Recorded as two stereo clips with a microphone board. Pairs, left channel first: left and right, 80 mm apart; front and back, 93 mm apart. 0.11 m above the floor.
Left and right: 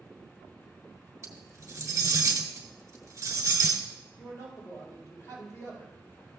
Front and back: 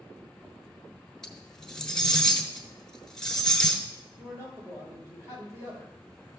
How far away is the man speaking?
About 3.5 m.